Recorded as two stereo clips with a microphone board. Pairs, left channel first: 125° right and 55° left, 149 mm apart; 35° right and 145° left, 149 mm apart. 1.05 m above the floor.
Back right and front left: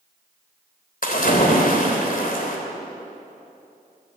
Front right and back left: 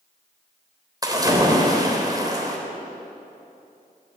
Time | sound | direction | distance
1.0 | a splash | 150° right | 3.5 m